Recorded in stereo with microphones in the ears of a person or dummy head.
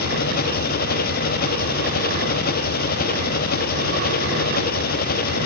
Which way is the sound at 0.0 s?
45° left (ahead or behind).